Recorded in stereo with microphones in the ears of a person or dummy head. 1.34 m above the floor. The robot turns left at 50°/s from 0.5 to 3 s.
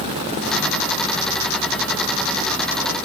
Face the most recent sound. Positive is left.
No sound to turn to.